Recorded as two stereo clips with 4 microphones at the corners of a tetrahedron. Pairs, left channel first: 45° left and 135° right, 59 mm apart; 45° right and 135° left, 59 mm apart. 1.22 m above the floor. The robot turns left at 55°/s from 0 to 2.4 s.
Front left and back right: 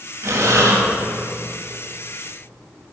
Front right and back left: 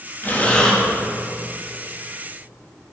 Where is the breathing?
100° right, 2.5 m; by 0.8 s 130° right, 2.5 m.